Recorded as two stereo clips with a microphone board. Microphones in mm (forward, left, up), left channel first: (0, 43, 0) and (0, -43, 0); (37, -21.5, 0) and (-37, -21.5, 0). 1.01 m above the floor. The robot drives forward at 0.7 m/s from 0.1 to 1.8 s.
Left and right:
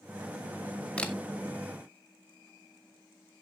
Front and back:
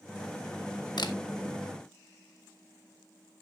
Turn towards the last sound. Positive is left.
turn(degrees=20)